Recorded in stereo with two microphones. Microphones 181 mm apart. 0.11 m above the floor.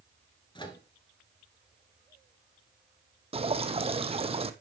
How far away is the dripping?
About 0.7 m.